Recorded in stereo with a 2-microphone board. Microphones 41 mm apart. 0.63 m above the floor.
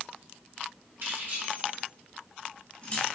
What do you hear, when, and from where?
1.0 s keys jangling: 60° right (ahead or behind), 1.7 m; by 3.1 s 40° left (ahead or behind), 0.8 m